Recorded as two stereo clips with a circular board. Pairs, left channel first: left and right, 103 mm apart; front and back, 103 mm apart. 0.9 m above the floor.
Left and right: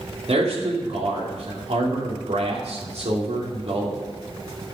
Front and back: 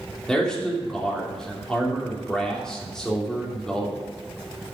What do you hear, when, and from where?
0.3 s a man speaking: 85° right, 2.5 m